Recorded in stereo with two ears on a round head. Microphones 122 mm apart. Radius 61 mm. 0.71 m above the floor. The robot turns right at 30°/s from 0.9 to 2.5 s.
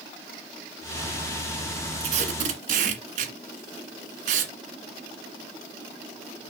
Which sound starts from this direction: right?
Tape being pulled, at 2.0 s.